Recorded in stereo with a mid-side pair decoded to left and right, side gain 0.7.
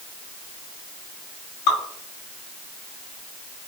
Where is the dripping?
65° left, 2.5 m.